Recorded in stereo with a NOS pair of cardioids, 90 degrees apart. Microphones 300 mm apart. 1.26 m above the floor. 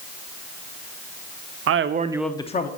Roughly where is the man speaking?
Ahead right.